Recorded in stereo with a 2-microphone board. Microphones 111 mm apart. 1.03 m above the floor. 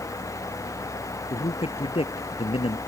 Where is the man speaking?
55° left (ahead or behind).